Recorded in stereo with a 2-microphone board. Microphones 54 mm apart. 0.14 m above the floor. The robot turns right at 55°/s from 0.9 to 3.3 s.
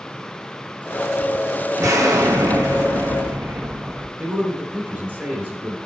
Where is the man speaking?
25° right (ahead or behind), 1.9 m.